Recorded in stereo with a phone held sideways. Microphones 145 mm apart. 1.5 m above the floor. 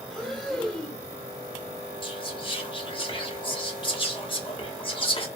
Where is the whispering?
35° left (ahead or behind), 0.8 m.